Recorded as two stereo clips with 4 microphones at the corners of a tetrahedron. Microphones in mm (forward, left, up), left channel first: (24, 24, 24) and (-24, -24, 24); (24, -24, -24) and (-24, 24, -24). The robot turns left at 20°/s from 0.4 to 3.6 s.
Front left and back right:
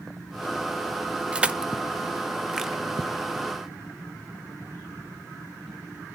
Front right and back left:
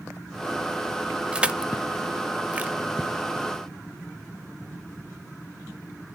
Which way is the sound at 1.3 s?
Straight behind.